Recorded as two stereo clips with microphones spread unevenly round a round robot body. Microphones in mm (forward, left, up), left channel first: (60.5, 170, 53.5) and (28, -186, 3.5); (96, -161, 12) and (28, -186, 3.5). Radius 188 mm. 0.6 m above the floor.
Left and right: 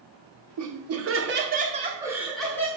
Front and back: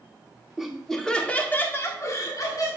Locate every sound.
0.6 s laughter: 80° right, 2.0 m; by 2.7 s straight ahead, 2 m